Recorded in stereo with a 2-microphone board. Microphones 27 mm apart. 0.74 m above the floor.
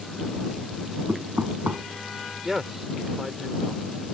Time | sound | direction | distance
1.1 | knocking | 80° right | ?
2.4 | a man speaking | 15° right (ahead or behind) | ?